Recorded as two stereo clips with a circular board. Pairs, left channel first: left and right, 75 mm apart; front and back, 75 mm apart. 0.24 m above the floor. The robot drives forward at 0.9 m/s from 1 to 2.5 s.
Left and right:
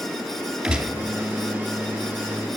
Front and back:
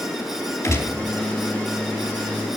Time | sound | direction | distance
0.6 | a gunshot | 15° right | 2 m